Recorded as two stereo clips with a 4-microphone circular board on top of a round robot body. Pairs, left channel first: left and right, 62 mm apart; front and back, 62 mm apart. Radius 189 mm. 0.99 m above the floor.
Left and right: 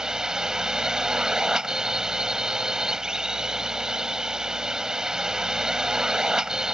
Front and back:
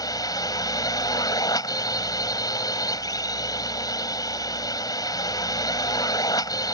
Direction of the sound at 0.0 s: 10° right.